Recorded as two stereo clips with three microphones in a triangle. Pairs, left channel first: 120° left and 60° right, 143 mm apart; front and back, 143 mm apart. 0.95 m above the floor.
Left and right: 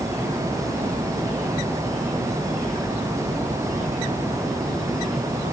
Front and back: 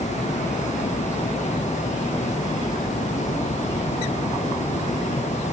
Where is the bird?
No bird in this recording.